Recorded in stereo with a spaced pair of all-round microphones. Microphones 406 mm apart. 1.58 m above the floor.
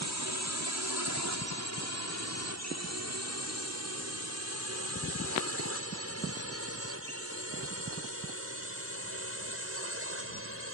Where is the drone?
45° right (ahead or behind); by 10.8 s 35° right (ahead or behind).